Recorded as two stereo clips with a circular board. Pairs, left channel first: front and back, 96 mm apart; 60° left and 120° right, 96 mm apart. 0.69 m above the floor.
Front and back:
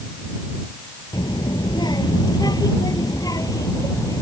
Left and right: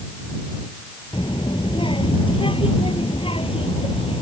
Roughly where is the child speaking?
Ahead left.